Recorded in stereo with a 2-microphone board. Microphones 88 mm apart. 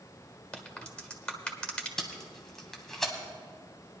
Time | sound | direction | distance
0.5 | a crack | 10° left (ahead or behind) | 1.4 m
2.0 | tape being pulled | 5° left (ahead or behind) | 1.5 m